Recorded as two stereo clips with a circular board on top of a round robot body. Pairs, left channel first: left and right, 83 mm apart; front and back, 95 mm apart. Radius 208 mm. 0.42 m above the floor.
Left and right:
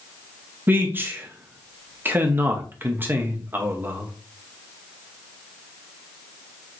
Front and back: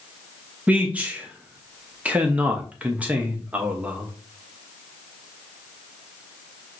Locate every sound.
0.7 s a man speaking: 120° right, 1.0 m